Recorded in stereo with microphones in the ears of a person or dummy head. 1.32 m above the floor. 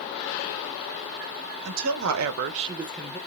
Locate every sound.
1.6 s a woman speaking: 75° right (ahead or behind), 1.5 m; by 3.2 s 15° left (ahead or behind), 1.1 m